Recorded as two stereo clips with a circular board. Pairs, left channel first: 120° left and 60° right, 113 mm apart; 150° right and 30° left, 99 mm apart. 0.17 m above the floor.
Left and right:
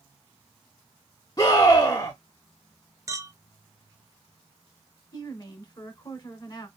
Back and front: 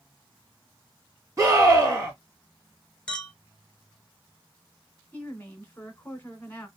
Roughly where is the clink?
Right.